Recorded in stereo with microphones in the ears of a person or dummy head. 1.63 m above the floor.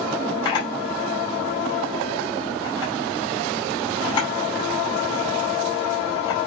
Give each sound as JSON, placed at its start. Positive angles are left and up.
{"t": 0.5, "sound": "a camera shutter", "side_deg": 25, "distance_m": 4.5}